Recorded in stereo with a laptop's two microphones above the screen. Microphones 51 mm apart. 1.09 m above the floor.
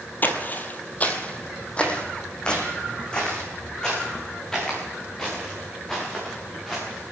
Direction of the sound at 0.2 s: 40° left (ahead or behind).